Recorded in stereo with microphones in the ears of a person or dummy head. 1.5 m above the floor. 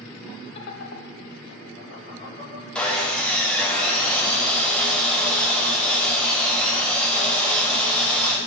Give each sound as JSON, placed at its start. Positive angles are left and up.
{"t": 0.6, "sound": "laughter", "side_deg": 35, "distance_m": 0.5}
{"t": 2.8, "sound": "sawing", "side_deg": 10, "distance_m": 0.6}